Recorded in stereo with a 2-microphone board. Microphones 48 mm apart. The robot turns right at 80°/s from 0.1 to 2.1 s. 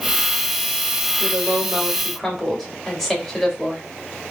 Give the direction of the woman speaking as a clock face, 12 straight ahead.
2 o'clock.